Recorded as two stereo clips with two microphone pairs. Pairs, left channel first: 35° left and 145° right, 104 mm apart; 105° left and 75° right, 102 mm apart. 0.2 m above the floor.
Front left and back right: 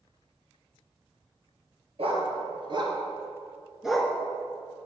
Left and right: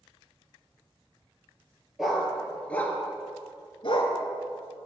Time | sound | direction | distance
2.0 | a dog barking | 165° right | 1.9 m